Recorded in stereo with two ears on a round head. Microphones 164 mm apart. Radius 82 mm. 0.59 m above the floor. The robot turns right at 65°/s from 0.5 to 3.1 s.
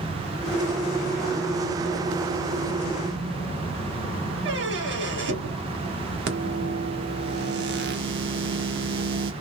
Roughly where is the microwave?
Right.